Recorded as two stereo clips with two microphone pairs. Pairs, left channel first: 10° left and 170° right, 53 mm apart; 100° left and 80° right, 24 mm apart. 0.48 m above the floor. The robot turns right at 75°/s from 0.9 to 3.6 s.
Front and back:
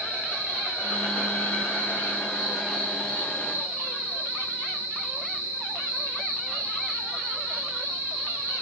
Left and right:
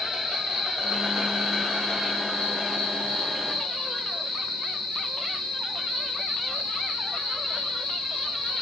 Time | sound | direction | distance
0.0 | an insect | 30° right | 3.5 m